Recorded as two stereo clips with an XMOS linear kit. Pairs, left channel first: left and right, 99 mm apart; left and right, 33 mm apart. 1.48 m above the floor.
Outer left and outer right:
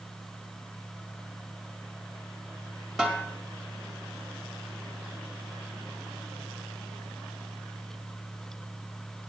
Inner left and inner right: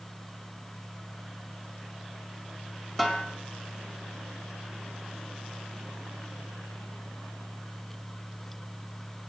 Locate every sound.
3.0 s a snare drum: 5° right (ahead or behind), 1.9 m